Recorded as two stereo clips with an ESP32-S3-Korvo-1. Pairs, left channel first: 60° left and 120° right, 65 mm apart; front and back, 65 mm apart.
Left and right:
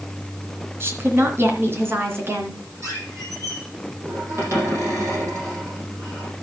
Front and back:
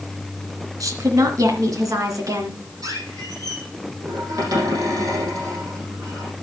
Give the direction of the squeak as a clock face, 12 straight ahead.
5 o'clock.